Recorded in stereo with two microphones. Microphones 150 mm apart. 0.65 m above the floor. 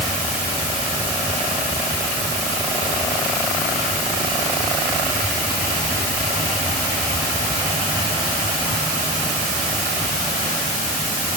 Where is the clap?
I don't hear a clap.